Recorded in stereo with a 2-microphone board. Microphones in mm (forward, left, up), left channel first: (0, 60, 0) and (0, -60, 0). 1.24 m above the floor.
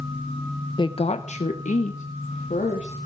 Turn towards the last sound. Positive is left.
turn(degrees=80)